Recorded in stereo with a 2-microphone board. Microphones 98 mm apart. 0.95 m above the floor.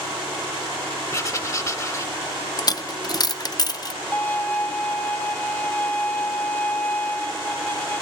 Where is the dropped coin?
40° left (ahead or behind), 0.5 m.